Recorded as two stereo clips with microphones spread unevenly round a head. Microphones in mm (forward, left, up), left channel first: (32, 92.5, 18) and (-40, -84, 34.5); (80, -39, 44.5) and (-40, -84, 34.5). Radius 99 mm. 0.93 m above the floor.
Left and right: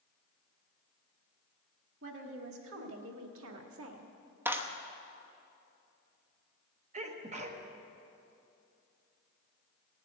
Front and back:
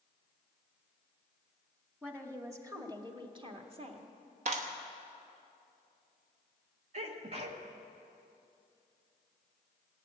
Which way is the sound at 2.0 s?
85° right.